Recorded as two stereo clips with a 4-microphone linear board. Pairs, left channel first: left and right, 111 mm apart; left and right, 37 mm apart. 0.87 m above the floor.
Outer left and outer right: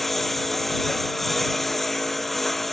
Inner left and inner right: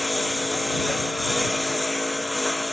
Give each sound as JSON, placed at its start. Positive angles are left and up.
{"t": 0.0, "sound": "a lawn mower", "side_deg": 0}